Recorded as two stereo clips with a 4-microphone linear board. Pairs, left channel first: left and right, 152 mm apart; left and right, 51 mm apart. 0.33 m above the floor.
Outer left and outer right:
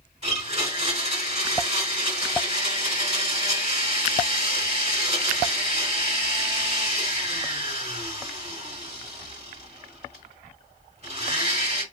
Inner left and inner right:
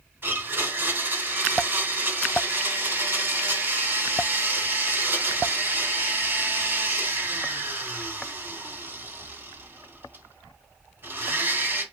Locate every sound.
0.2 s a blender: 45° right (ahead or behind), 2.5 m